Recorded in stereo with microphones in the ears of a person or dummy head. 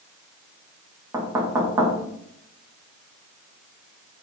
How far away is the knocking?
About 0.9 m.